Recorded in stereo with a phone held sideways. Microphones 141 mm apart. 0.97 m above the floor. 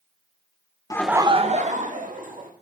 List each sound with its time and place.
0.9 s laughter: 25° left (ahead or behind), 0.5 m; by 2.5 s 75° right (ahead or behind), 2 m